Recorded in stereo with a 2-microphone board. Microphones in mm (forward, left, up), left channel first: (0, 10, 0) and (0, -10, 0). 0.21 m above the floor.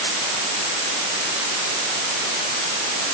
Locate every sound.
Only background noise.